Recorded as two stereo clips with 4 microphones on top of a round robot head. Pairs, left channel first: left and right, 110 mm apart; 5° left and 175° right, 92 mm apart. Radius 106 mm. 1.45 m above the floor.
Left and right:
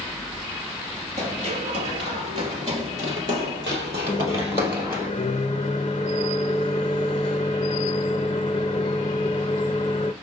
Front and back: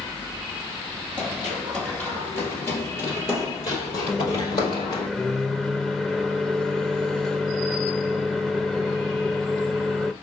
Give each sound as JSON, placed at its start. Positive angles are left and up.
{"t": 1.2, "sound": "running footsteps", "azimuth_deg": -95, "distance_m": 1.7}
{"t": 4.1, "sound": "a microwave", "azimuth_deg": 100, "distance_m": 0.5}